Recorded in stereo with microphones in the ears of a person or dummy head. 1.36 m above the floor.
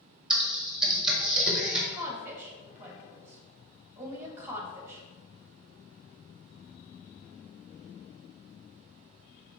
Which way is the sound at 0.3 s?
5° right (ahead or behind).